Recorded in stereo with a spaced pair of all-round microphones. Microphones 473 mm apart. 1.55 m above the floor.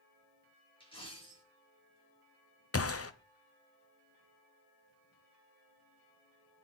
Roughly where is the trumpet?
No trumpet in this recording.